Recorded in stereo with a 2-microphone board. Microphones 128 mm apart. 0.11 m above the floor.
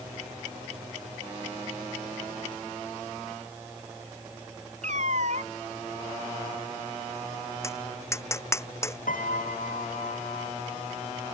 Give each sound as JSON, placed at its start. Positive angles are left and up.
{"t": 4.8, "sound": "a cat meowing", "side_deg": -65}
{"t": 7.6, "sound": "tapping", "side_deg": 20}
{"t": 9.1, "sound": "a piano", "side_deg": 75}